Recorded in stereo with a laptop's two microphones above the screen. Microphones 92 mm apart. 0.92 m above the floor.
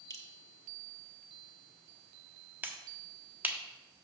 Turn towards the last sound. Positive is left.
turn(degrees=-20)  # may be behind; listen again after turning